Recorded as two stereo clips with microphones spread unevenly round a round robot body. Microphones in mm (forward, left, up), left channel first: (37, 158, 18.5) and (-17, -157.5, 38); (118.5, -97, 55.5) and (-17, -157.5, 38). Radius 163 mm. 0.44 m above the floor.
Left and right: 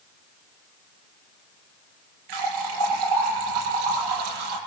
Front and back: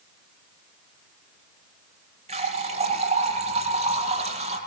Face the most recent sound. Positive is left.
turn(degrees=-115)